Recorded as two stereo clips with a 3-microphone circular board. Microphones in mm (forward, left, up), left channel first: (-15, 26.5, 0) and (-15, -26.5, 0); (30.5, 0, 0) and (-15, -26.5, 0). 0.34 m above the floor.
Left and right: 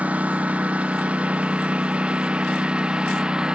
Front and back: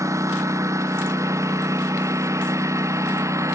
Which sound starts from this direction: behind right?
A lawn mower, at 0.0 s.